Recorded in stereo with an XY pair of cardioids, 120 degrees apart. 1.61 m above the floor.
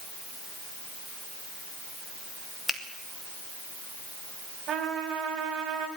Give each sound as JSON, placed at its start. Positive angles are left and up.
{"t": 2.7, "sound": "a finger snap", "azimuth_deg": 5, "distance_m": 2.5}
{"t": 4.7, "sound": "a trumpet", "azimuth_deg": -55, "distance_m": 5.0}